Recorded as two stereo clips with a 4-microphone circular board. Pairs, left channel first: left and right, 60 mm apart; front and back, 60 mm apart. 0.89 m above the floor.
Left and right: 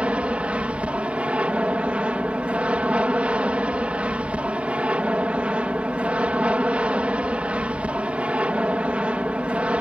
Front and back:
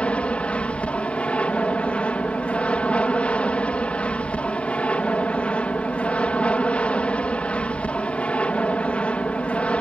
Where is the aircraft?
45° right.